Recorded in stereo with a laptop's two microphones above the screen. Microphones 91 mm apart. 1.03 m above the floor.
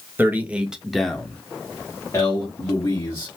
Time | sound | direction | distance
0.2 | a man speaking | 20° right (ahead or behind) | 0.9 m